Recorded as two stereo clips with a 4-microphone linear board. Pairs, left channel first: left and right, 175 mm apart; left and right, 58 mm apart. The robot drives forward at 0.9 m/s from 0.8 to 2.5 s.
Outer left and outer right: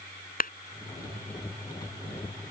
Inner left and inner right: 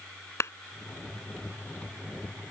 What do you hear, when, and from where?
0.4 s a clap: 55° left (ahead or behind)